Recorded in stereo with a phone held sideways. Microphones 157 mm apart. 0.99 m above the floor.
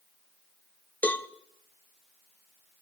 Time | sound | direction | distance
1.0 | a cowbell | 10° left (ahead or behind) | 0.7 m